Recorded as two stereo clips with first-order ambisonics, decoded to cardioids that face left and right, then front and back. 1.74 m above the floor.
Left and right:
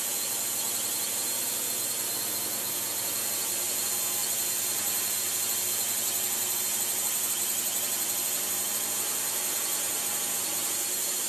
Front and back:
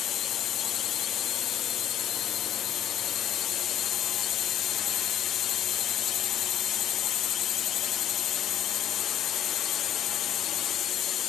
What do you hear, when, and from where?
0.0 s a drone: 10° right